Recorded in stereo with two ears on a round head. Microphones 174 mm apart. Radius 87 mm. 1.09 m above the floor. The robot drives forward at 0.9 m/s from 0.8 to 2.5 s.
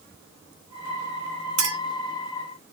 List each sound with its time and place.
1.6 s a clink: 75° right (ahead or behind), 2.0 m; by 1.8 s 70° right (ahead or behind), 2 m